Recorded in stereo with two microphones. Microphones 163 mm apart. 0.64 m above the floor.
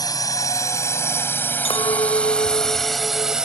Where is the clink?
35° left (ahead or behind).